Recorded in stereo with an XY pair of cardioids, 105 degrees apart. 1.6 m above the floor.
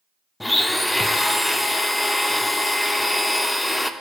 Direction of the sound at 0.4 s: 10° left.